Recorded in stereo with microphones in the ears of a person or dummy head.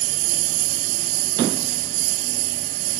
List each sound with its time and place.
0.0 s a lawn mower: 85° right